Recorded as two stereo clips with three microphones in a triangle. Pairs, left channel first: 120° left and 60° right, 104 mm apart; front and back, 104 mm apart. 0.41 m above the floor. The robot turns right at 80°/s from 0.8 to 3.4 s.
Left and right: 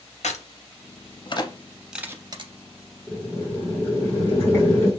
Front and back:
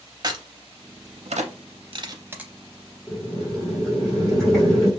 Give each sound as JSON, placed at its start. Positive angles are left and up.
{"t": 0.2, "sound": "a crack", "azimuth_deg": 125, "distance_m": 0.5}
{"t": 3.1, "sound": "boiling", "azimuth_deg": 55, "distance_m": 1.4}